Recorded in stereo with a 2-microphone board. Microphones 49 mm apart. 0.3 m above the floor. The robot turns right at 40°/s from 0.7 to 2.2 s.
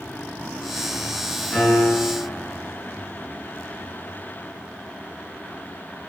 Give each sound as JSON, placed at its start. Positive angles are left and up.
{"t": 1.5, "sound": "a piano", "side_deg": 25, "distance_m": 1.7}